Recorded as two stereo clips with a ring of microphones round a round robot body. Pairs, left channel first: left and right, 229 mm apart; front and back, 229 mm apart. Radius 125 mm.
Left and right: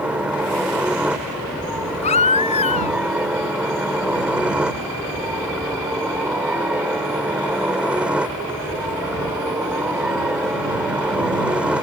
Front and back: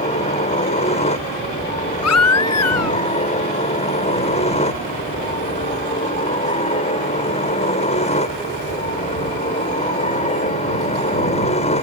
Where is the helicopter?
10° right.